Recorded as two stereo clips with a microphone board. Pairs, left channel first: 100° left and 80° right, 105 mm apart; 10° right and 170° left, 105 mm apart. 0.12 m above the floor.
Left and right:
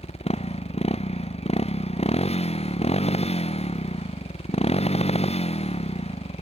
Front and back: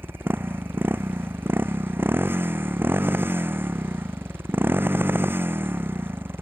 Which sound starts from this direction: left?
A motorcycle, at 0.0 s.